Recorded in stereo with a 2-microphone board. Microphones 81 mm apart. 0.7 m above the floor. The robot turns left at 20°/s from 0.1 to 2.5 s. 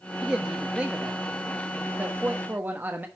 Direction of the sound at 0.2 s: 10° right (ahead or behind).